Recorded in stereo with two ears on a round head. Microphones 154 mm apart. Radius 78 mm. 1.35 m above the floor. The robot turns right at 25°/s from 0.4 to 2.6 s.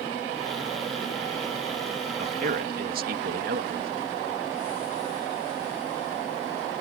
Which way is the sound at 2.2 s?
50° right (ahead or behind).